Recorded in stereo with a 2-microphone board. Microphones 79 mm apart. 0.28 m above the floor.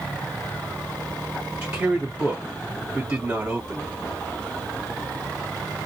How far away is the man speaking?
About 1.4 m.